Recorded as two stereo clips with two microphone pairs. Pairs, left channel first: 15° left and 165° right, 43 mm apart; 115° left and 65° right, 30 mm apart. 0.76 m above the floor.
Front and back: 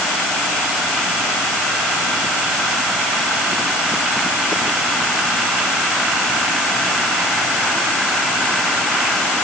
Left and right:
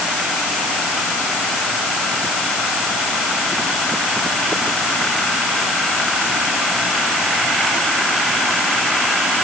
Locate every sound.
Only background noise.